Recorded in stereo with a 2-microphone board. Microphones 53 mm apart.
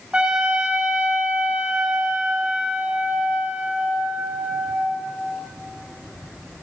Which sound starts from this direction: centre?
A trumpet, at 0.1 s.